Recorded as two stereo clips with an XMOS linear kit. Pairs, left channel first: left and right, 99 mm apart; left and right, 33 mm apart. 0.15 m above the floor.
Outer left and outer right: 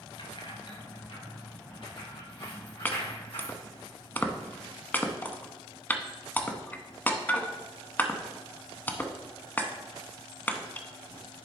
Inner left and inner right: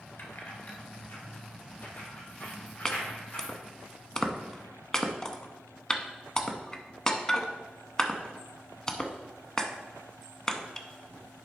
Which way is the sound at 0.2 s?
60° left (ahead or behind).